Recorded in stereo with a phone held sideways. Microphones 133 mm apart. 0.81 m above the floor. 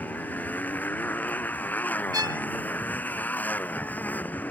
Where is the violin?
30° right (ahead or behind).